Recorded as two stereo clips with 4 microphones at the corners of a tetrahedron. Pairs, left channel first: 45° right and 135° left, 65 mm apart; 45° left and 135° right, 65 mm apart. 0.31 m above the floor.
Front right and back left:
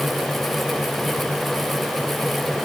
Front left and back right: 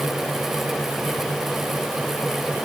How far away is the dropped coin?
No dropped coin in this recording.